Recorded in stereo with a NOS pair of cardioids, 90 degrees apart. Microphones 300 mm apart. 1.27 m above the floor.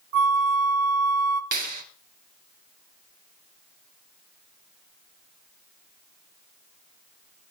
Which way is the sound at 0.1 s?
70° right.